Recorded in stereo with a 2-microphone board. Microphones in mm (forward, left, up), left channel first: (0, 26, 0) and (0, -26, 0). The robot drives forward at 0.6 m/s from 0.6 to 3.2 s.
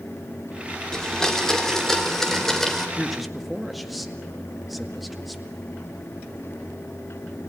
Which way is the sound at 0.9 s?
10° left (ahead or behind).